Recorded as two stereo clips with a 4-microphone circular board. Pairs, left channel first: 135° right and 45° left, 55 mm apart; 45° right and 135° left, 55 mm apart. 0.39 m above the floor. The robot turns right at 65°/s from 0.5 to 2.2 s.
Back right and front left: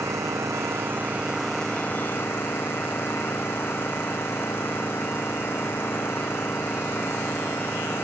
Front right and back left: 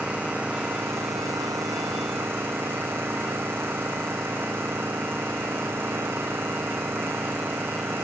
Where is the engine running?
70° left; by 8.1 s straight behind.